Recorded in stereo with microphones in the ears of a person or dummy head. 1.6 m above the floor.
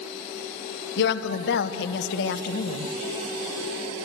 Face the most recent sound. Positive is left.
turn(degrees=65)  # may be behind; listen again after turning